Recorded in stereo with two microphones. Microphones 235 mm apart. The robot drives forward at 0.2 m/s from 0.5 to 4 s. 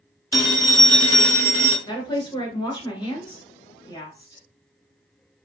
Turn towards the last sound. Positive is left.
turn(degrees=20)  # may be behind; listen again after turning